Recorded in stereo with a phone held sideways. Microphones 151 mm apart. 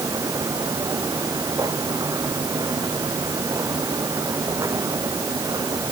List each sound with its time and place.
0.0 s a machine running: 25° right (ahead or behind)